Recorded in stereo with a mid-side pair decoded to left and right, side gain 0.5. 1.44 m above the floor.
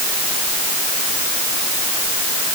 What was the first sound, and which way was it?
Only background noise.